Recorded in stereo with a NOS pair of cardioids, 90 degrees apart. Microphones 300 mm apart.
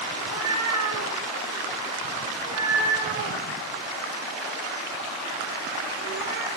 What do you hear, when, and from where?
0.1 s a cat meowing: 65° right, 6.5 m; by 6.5 s 45° right, 2 m